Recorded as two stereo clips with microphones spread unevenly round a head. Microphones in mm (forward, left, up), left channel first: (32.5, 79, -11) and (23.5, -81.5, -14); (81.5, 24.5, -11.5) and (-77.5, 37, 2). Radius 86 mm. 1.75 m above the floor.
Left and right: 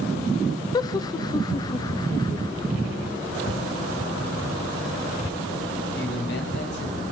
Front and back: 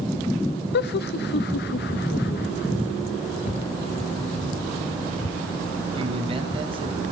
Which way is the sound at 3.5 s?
35° left.